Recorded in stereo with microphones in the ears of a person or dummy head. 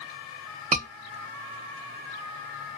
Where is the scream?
35° right (ahead or behind), 0.9 m.